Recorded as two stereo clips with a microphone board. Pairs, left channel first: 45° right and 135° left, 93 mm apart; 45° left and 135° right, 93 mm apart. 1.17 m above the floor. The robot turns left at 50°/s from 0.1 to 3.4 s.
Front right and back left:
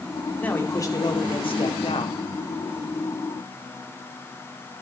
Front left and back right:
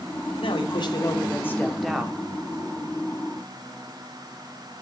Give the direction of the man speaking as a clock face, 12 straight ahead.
11 o'clock.